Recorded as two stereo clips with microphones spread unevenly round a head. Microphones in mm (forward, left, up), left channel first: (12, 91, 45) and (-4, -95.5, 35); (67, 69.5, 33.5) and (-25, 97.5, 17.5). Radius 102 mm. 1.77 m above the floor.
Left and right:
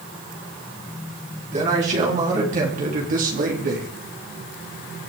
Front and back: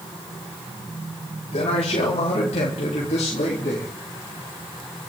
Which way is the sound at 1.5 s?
40° right.